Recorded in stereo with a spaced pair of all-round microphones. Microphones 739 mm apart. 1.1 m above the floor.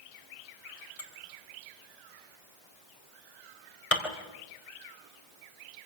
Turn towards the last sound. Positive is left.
turn(degrees=45)  # may be behind; listen again after turning